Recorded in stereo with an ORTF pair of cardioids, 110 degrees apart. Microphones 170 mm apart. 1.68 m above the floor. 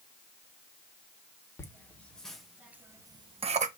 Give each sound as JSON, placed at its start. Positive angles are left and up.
{"t": 1.6, "sound": "laughter", "azimuth_deg": 15, "distance_m": 2.5}